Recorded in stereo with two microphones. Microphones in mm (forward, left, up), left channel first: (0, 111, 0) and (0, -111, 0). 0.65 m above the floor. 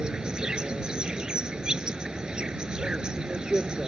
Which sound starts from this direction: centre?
An insect, at 0.0 s.